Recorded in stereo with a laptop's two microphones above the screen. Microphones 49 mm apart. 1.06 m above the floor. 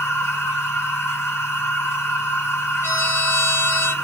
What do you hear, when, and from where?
0.0 s a machine running: 65° left (ahead or behind), 1.9 m
2.8 s a trumpet: 60° left (ahead or behind), 1.8 m